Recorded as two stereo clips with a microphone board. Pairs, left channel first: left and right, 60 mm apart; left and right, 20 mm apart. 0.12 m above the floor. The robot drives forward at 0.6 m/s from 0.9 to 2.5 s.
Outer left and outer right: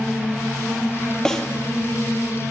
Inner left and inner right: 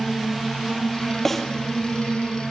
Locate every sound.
1.2 s a snare drum: 10° left (ahead or behind), 3.5 m